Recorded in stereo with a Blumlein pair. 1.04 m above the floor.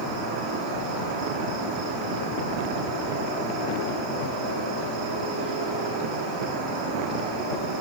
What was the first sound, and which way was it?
An insect, 30° right.